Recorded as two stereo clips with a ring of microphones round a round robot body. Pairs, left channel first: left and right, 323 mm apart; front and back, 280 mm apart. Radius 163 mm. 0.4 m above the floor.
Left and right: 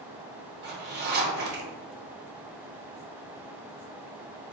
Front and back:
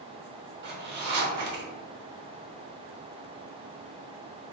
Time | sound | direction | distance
0.6 | a zipper | 140° right | 0.7 m